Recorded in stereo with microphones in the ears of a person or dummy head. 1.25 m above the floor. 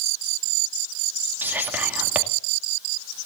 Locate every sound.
1.4 s whispering: 10° right (ahead or behind), 2 m